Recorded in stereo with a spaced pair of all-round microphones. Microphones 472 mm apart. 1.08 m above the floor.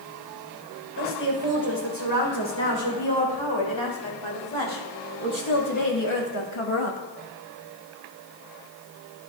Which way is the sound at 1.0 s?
65° left (ahead or behind).